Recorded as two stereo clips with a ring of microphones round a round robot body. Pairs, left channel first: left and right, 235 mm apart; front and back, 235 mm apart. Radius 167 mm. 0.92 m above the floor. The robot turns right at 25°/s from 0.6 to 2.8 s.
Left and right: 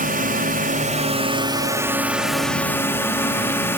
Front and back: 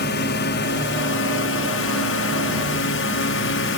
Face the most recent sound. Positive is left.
turn(degrees=10)